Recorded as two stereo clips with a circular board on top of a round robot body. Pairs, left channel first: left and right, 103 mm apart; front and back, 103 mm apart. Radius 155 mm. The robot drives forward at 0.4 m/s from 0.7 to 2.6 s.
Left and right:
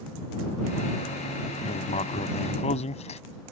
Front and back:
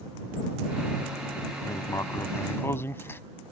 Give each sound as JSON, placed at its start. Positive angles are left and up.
{"t": 1.6, "sound": "writing", "azimuth_deg": 60}